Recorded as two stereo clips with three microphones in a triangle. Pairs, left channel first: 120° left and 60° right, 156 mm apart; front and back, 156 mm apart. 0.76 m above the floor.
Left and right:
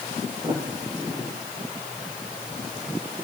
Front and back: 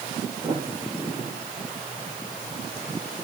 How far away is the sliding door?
About 9.5 m.